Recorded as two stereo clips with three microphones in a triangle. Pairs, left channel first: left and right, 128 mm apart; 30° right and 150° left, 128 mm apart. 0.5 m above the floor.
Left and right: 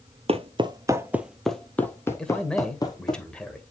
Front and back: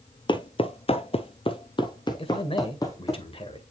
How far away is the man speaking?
About 1.6 m.